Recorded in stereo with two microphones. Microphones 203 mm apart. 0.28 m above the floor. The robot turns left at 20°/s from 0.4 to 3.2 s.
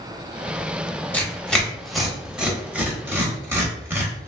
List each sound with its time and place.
1.1 s tearing paper: 5° left (ahead or behind), 0.8 m; by 4.3 s 10° right (ahead or behind), 0.8 m